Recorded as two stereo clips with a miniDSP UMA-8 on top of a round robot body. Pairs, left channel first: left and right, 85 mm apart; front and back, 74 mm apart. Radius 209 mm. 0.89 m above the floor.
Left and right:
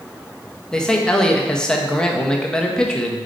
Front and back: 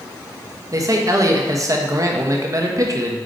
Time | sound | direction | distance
0.7 | a man speaking | 170° left | 1.3 m